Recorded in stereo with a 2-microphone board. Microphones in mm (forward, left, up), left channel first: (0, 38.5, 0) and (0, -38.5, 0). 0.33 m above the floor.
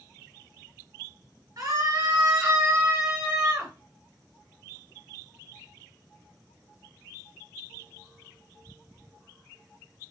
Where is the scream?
50° right (ahead or behind), 4 m; by 3.7 s 25° right (ahead or behind), 4.5 m.